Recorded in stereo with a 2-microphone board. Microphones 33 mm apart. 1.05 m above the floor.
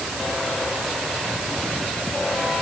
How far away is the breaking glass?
I don't hear breaking glass.